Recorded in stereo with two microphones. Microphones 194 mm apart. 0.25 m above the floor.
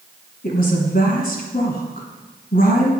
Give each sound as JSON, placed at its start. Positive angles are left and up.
{"t": 0.4, "sound": "a woman speaking", "side_deg": 55, "distance_m": 2.5}